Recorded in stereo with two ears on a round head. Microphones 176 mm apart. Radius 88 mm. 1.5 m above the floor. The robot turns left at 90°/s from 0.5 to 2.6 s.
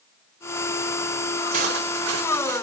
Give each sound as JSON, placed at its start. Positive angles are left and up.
{"t": 1.5, "sound": "cutlery clinking", "azimuth_deg": -35, "distance_m": 4.0}